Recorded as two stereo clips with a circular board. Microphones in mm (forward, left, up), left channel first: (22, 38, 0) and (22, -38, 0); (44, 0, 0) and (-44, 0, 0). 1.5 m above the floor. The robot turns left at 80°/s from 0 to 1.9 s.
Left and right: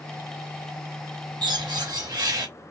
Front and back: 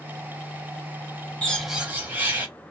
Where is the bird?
75° right, 1.0 m; by 2.5 s 115° right, 1.0 m.